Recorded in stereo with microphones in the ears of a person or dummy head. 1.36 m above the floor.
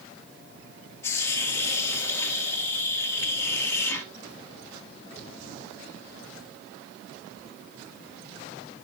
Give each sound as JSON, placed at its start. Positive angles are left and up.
{"t": 1.0, "sound": "a hiss", "side_deg": 10, "distance_m": 1.6}